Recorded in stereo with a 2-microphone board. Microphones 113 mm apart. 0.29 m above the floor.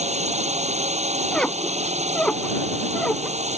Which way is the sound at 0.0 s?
80° right.